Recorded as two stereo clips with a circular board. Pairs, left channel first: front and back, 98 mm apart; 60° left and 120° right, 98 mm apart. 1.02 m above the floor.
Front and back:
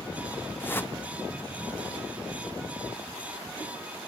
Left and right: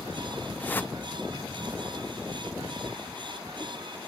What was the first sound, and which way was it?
A whoosh, 25° left.